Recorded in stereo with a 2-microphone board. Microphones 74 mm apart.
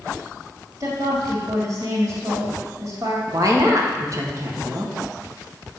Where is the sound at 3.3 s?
45° right (ahead or behind), 1.2 m.